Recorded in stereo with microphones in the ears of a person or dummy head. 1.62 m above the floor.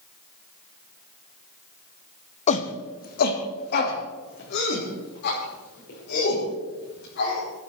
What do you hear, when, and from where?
2.5 s a shout: 35° left (ahead or behind), 1.0 m; by 7.4 s 60° left (ahead or behind), 8 m